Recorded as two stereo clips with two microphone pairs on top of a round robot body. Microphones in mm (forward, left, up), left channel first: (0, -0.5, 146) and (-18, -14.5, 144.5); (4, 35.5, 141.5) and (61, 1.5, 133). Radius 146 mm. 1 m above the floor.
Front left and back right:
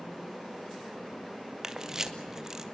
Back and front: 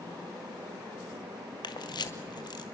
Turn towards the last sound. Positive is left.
turn(degrees=155)